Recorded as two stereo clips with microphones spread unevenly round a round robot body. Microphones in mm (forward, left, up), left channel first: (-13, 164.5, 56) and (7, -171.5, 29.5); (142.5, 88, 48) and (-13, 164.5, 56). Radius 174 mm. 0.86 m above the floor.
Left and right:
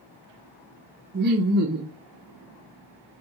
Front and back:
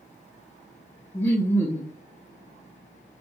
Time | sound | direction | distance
1.1 | laughter | 95° right | 0.5 m